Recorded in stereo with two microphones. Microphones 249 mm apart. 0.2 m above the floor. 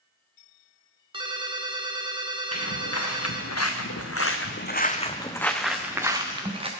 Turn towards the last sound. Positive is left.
turn(degrees=-25)  # may be behind; listen again after turning